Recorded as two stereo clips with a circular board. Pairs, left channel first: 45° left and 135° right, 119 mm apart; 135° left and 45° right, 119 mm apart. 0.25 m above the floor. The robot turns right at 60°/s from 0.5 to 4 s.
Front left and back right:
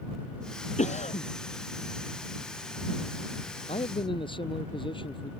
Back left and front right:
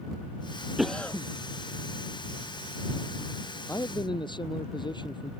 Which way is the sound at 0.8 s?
40° left.